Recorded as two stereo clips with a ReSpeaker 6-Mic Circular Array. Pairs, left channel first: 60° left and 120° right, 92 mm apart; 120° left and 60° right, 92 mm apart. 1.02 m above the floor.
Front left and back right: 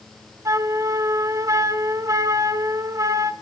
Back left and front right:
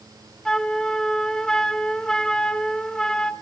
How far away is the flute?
About 0.7 m.